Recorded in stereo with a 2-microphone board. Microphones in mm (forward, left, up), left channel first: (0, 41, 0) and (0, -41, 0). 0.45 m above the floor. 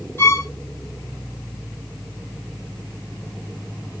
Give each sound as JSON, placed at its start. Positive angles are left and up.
{"t": 0.2, "sound": "a violin", "side_deg": 25, "distance_m": 1.9}